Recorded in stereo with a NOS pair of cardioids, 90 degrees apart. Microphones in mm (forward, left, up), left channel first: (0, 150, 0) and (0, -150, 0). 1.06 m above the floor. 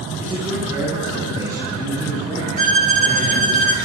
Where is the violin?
25° right, 1.1 m.